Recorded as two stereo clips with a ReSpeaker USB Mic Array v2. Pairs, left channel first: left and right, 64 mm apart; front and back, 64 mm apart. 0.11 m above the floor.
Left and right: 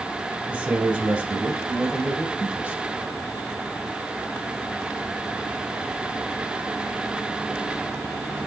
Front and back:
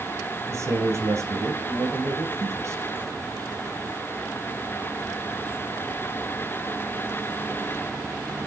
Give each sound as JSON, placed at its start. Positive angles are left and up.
{"t": 0.5, "sound": "a man speaking", "azimuth_deg": -155, "distance_m": 2.5}